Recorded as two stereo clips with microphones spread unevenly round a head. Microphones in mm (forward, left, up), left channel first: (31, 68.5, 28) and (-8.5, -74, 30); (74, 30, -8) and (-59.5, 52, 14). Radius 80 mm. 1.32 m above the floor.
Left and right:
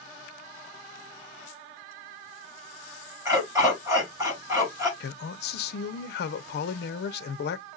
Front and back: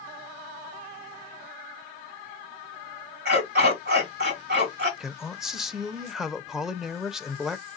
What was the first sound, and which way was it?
A dog barking, straight behind.